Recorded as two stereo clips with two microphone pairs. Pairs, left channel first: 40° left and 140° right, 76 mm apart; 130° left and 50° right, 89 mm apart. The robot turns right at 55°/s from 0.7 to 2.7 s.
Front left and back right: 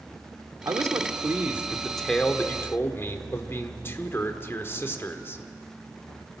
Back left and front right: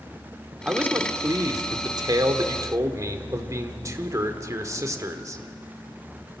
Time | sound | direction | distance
0.7 | a man speaking | 120° right | 1.4 m